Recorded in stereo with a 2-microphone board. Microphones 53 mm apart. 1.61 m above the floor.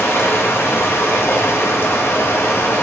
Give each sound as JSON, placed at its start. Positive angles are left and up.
{"t": 0.0, "sound": "running water", "side_deg": 50, "distance_m": 1.2}